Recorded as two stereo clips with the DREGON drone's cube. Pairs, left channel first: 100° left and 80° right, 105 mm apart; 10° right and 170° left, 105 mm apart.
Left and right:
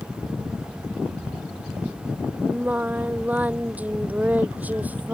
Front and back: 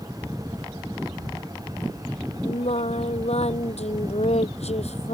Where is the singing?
5° right.